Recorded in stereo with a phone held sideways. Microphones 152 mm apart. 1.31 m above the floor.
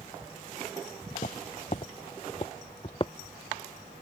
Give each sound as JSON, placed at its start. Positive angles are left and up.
{"t": 1.1, "sound": "footsteps", "side_deg": 55}